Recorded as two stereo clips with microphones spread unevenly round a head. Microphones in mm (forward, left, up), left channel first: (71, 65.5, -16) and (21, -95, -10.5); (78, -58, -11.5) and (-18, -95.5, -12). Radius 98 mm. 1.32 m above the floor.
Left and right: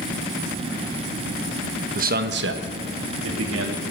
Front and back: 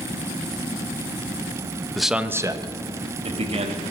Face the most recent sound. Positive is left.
turn(degrees=-140)